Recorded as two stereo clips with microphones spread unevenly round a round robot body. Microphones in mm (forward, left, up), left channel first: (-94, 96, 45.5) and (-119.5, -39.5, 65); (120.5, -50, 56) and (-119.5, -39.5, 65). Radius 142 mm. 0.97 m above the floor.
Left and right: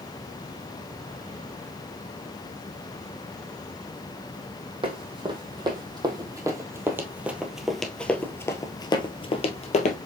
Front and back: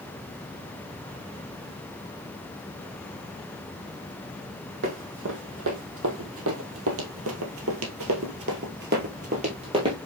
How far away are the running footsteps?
About 2.5 m.